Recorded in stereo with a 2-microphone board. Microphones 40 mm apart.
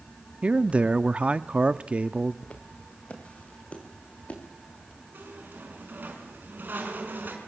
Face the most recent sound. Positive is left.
turn(degrees=-60)  # may be behind; listen again after turning